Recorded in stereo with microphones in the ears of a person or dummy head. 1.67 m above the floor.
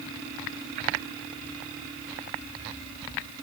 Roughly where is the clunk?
I don't hear a clunk.